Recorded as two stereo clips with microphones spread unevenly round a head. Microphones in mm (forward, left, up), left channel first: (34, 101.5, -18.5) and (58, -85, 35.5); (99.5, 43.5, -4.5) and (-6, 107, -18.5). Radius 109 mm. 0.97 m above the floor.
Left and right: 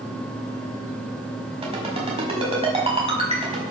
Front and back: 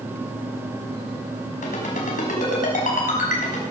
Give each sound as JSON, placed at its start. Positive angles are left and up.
{"t": 1.6, "sound": "a ringtone", "azimuth_deg": -25, "distance_m": 5.0}